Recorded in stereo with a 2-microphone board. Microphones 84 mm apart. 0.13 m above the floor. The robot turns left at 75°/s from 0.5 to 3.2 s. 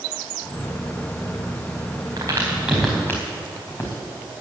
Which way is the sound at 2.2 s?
50° right (ahead or behind).